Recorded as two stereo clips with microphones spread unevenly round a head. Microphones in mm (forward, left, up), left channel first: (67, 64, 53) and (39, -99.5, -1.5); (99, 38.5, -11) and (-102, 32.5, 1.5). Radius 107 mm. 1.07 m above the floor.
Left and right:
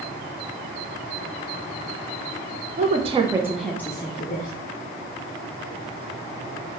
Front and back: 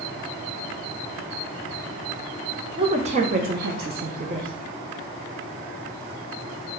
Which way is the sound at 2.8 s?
110° right.